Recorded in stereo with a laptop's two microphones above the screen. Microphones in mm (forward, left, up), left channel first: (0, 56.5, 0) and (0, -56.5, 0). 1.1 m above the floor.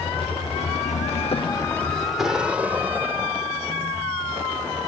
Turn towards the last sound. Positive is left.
turn(degrees=-25)  # may be behind; listen again after turning